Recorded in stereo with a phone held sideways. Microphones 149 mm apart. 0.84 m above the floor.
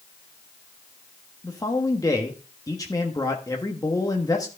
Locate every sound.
1.4 s a man speaking: 25° left (ahead or behind), 1.2 m